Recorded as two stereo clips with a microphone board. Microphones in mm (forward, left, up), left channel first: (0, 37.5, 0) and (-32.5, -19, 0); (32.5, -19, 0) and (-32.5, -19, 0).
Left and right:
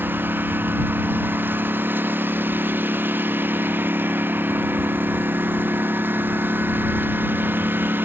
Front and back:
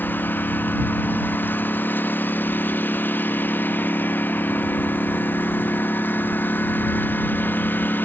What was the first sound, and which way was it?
A lawn mower, 60° right.